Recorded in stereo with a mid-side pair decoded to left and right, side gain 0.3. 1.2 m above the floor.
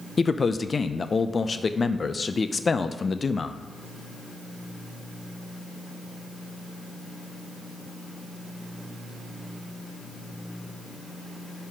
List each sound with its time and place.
0.2 s a man speaking: 45° left, 0.5 m